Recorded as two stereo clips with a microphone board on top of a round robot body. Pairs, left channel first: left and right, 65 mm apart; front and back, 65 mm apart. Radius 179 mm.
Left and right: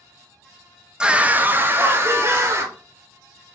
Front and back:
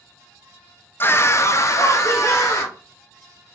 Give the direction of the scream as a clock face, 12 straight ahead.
1 o'clock.